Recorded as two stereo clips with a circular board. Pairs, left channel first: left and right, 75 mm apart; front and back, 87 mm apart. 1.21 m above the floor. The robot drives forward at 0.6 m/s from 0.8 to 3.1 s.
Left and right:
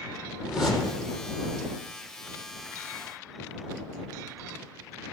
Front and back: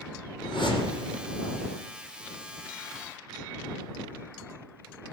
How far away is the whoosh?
About 6 m.